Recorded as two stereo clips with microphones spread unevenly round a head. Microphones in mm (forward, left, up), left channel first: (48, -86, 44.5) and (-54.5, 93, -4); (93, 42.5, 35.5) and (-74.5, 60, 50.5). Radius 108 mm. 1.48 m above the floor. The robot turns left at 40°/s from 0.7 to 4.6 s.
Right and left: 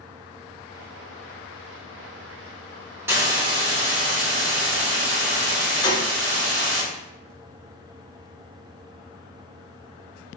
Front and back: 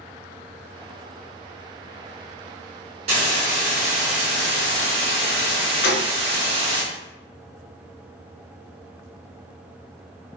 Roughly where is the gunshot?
Ahead.